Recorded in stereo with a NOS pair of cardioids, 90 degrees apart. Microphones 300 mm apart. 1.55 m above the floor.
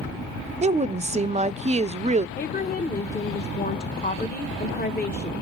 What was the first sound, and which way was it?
A woman speaking, 25° right.